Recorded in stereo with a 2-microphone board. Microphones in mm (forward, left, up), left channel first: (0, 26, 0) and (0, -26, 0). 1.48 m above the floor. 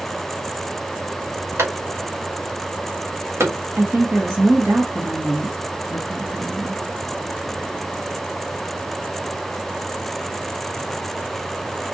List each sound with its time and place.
1.6 s a clap: 70° right (ahead or behind), 2.5 m
3.8 s a woman speaking: 50° right (ahead or behind), 1.4 m